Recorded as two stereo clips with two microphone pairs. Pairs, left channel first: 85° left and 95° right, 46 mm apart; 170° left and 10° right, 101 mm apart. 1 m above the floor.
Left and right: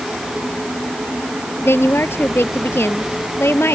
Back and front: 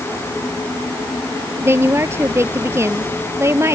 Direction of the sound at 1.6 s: 55° left.